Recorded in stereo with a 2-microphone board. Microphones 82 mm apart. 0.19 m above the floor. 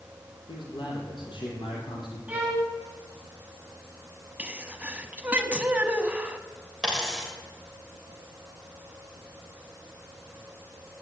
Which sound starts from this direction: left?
A man speaking, at 0.5 s.